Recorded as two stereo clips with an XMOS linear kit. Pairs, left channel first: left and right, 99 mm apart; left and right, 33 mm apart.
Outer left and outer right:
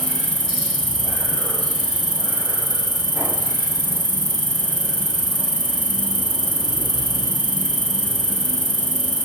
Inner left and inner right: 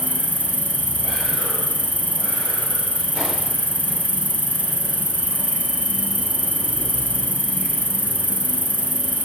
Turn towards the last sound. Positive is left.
turn(degrees=50)  # may be behind; listen again after turning